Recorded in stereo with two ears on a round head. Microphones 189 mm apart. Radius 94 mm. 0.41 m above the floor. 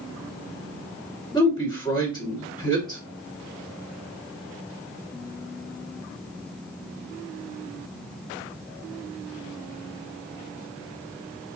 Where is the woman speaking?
20° left (ahead or behind), 1.6 m.